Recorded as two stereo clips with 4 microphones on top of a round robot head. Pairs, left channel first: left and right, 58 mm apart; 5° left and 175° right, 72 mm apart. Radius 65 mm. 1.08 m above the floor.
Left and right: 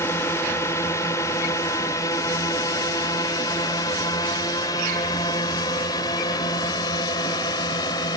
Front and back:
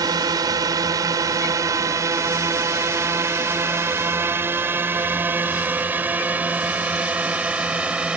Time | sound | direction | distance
0.0 | a drone | 145° left | ?